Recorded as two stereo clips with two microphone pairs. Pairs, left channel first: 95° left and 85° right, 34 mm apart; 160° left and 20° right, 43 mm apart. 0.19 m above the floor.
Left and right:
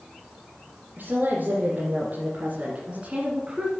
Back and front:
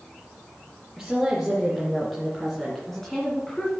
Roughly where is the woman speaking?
Right.